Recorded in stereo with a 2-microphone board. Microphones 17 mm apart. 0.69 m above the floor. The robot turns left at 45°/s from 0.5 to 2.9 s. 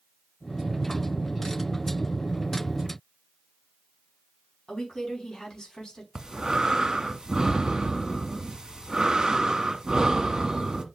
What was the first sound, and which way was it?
A woman speaking, 40° left (ahead or behind).